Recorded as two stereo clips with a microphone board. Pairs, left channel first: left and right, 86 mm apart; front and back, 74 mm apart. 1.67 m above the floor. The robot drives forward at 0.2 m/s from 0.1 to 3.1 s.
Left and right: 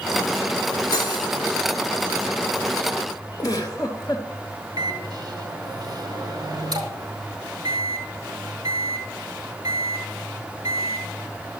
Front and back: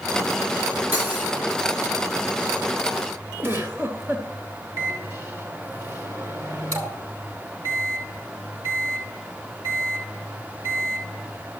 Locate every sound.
0.9 s cutlery clinking: 120° left, 2.5 m; by 1.3 s 125° left, 2.5 m
3.4 s a giggle: 130° left, 3 m
4.8 s a microwave: 130° right, 4.5 m